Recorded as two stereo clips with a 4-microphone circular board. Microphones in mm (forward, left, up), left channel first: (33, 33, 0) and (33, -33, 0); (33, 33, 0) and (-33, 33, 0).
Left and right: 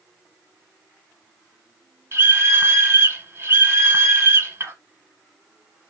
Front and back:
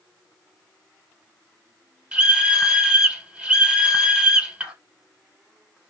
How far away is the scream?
About 1.3 m.